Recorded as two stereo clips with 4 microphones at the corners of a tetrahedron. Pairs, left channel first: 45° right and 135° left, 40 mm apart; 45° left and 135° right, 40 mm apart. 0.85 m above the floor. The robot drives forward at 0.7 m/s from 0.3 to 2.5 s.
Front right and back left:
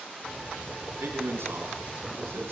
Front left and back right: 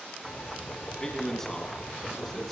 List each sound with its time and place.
1.0 s a man speaking: 120° left, 9.5 m; by 2.5 s 125° left, 10 m